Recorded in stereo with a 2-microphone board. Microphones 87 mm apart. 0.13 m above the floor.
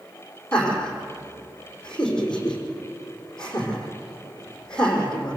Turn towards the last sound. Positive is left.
turn(degrees=10)  # may be behind; listen again after turning